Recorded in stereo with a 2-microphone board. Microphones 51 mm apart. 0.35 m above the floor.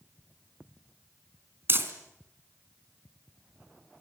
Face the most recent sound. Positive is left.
turn(degrees=-45)  # may be behind; listen again after turning